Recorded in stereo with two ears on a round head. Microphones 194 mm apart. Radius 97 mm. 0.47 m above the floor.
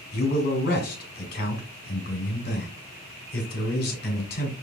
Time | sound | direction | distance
0.1 | a man speaking | 45° left (ahead or behind) | 1.9 m